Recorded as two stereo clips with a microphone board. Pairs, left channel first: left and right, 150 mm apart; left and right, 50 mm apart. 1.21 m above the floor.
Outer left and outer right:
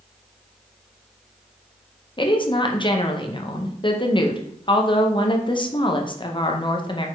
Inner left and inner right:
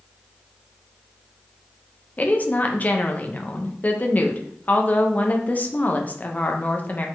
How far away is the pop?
I don't hear a pop.